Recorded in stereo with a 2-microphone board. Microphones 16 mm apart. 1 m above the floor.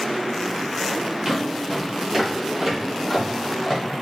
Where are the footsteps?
30° right (ahead or behind), 1.1 m; by 3.8 s 15° right (ahead or behind), 1.7 m.